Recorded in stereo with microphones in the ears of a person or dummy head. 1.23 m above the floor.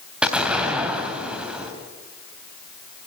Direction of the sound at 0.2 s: 5° right (ahead or behind).